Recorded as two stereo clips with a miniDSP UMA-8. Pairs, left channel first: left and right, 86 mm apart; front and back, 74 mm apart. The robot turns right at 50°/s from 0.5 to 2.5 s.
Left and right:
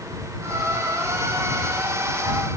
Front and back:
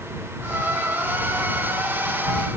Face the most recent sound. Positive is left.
No sound to turn to.